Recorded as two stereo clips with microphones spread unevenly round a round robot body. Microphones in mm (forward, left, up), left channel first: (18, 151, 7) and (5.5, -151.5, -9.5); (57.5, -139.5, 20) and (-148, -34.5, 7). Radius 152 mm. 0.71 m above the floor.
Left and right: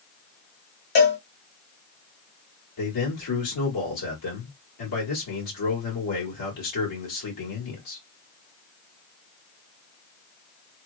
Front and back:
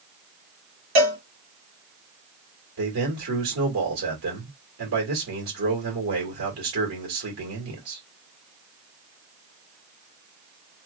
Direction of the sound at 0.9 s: 135° left.